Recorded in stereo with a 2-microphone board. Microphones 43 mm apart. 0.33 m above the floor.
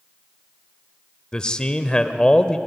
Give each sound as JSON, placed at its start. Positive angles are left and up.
{"t": 1.3, "sound": "a man speaking", "side_deg": 25, "distance_m": 0.9}